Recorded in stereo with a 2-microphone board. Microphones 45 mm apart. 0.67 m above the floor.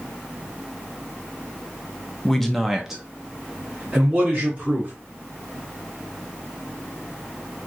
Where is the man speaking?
10° left (ahead or behind), 0.6 m; by 4.9 s 25° right (ahead or behind), 1.5 m.